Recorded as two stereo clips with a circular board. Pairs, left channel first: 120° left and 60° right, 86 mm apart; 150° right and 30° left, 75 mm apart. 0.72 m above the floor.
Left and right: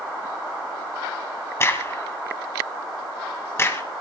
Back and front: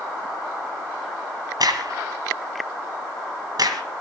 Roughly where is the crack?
Ahead left.